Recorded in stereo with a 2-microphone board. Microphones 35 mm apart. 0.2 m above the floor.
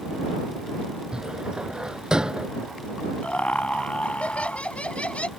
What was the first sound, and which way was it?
A cupboard door, 20° right (ahead or behind).